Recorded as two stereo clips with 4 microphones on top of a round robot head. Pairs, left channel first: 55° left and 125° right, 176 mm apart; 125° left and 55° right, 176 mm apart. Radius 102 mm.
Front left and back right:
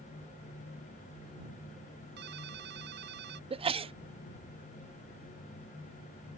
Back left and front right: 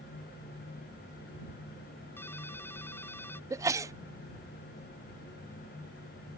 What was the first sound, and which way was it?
A ringtone, 155° right.